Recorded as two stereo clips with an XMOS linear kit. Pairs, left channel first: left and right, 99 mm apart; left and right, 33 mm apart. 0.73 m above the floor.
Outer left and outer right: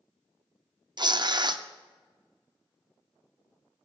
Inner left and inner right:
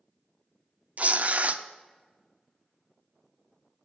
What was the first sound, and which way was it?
Tearing paper, 45° right (ahead or behind).